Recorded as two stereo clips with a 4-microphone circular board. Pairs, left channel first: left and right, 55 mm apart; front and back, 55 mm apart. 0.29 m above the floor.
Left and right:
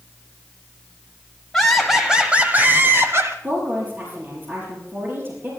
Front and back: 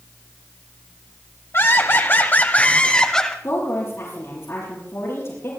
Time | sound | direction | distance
1.5 | laughter | 5° left | 1.7 m
3.4 | a woman speaking | 40° right | 6 m